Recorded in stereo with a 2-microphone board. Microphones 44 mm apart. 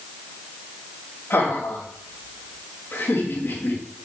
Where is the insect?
I don't hear an insect.